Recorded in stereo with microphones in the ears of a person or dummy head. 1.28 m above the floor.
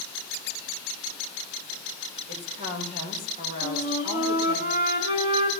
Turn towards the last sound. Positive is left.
turn(degrees=-25)  # may be behind; listen again after turning